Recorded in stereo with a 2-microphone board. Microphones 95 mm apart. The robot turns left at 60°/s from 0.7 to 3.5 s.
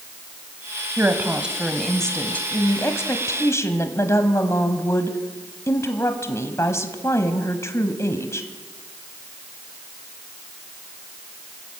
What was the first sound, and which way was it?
A woman speaking, 20° right (ahead or behind).